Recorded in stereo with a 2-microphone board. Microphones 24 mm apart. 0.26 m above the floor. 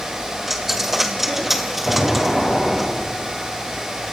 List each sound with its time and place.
0.5 s a dropped coin: 5° right (ahead or behind), 2.5 m
1.9 s an explosion: 5° right (ahead or behind), 8.5 m